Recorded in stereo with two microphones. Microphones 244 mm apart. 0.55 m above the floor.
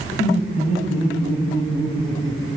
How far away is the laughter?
About 4 m.